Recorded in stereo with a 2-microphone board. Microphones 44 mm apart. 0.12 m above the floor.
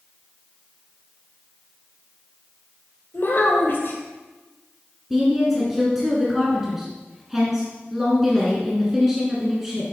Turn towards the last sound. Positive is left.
turn(degrees=-10)  # may be behind; listen again after turning